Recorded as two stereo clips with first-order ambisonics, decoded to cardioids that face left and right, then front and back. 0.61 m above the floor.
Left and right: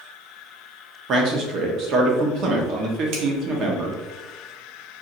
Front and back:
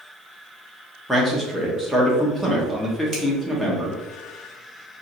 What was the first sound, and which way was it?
A man speaking, 90° right.